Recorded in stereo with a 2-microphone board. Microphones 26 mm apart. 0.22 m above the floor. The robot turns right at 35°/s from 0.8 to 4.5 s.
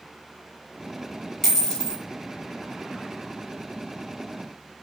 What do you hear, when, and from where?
1.4 s a dropped coin: 10° left (ahead or behind), 1.3 m; by 2.0 s 30° left (ahead or behind), 1.3 m